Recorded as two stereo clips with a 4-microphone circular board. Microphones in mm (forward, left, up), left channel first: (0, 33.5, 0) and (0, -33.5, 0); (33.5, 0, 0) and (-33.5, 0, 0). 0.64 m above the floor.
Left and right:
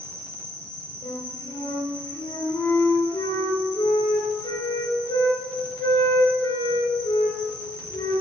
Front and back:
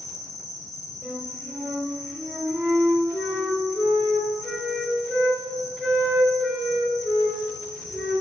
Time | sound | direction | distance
0.0 | an insect | 150° left | 4.5 m
1.0 | a flute | 100° left | 3.5 m